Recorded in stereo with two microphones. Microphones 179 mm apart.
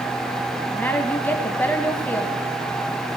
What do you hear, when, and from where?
0.7 s a woman speaking: 10° left (ahead or behind), 1.4 m